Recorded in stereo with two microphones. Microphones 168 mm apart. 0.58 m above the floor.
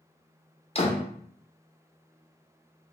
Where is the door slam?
35° left (ahead or behind), 0.7 m.